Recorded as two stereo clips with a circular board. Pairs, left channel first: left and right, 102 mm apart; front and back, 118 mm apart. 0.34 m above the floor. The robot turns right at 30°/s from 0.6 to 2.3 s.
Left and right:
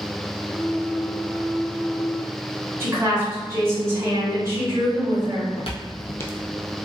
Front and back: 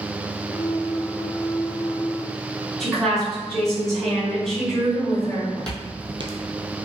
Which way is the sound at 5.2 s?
70° left.